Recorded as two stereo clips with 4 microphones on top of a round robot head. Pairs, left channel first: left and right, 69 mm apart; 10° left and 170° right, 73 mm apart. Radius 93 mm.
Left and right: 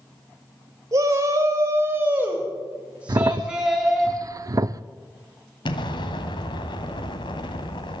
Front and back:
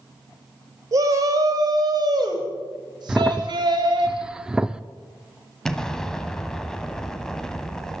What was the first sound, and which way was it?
A shout, 130° right.